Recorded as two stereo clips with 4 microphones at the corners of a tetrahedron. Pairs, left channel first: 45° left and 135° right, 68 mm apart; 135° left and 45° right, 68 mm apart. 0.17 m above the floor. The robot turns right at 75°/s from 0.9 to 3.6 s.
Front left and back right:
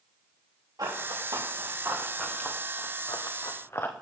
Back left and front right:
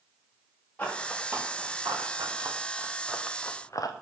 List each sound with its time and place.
0.8 s running footsteps: 155° right, 5.5 m; by 3.9 s 105° left, 1.6 m